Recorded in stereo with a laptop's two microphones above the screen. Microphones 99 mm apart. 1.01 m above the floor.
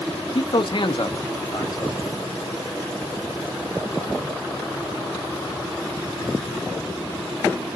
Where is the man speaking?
55° left (ahead or behind), 0.6 m; by 2.2 s 35° left (ahead or behind), 1.2 m.